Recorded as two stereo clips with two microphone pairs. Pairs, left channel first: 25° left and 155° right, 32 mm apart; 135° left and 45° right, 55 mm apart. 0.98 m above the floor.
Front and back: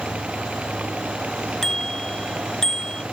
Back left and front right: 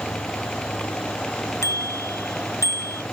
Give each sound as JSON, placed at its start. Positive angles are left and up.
{"t": 1.6, "sound": "a bicycle bell", "azimuth_deg": 100}